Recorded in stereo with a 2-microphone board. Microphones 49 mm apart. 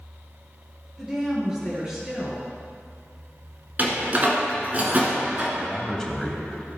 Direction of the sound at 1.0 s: 20° right (ahead or behind).